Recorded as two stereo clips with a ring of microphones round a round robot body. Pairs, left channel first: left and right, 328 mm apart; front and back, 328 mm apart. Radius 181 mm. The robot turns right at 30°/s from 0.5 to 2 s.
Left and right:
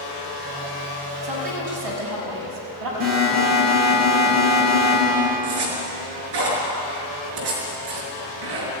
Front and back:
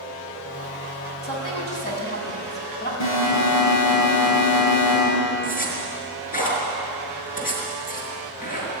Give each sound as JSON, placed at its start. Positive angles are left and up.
{"t": 1.2, "sound": "a woman speaking", "azimuth_deg": -80, "distance_m": 6.5}
{"t": 3.0, "sound": "an alarm", "azimuth_deg": -35, "distance_m": 9.5}
{"t": 5.4, "sound": "a zipper", "azimuth_deg": -65, "distance_m": 5.5}